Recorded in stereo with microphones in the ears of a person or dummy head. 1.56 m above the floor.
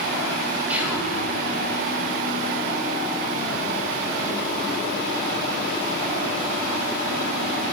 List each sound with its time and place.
0.7 s whispering: 10° right (ahead or behind), 1.0 m